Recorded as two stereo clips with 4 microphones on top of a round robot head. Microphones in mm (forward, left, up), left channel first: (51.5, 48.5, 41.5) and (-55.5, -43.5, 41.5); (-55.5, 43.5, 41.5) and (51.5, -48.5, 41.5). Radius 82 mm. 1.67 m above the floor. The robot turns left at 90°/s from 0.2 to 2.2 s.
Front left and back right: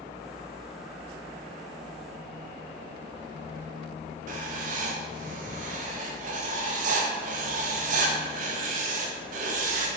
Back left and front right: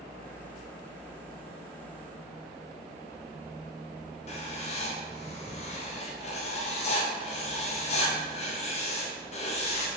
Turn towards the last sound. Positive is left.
turn(degrees=-175)